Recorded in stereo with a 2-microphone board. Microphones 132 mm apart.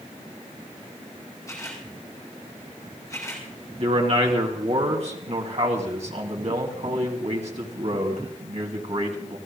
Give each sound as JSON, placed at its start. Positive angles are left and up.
{"t": 1.5, "sound": "a camera shutter", "side_deg": 25, "distance_m": 4.5}
{"t": 3.8, "sound": "a man speaking", "side_deg": -55, "distance_m": 2.0}